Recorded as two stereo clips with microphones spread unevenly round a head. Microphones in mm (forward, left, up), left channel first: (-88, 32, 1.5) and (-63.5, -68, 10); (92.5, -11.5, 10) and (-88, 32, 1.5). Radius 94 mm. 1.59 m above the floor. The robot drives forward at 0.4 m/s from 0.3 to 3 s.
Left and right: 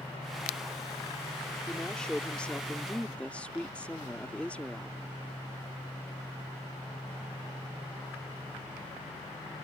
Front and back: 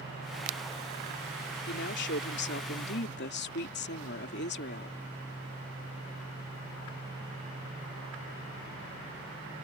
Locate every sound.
1.7 s a woman speaking: 15° left; by 5.0 s 20° left